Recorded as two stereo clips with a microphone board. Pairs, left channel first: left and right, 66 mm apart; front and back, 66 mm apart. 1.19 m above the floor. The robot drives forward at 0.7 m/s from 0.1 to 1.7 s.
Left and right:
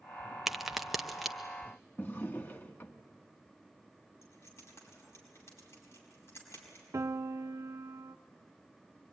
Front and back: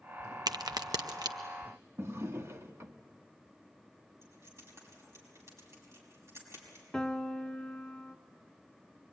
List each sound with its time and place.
0.5 s a crack: 175° right, 0.5 m; by 1.4 s straight behind, 1.2 m
2.0 s a drawer: 140° left, 0.9 m
4.2 s keys jangling: 130° left, 5.5 m
6.9 s a piano: 85° right, 0.6 m